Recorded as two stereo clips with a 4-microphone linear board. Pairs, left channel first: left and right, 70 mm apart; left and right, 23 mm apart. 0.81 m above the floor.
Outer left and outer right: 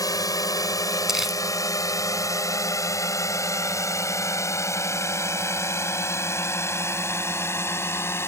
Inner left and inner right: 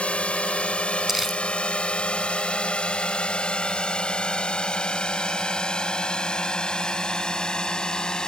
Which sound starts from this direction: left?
A drone, at 0.0 s.